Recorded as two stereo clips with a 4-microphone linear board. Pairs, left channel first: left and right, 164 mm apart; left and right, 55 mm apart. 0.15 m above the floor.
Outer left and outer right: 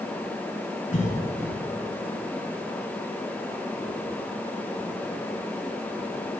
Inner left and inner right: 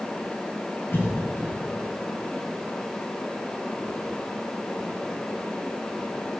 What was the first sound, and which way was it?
A cough, 50° left (ahead or behind).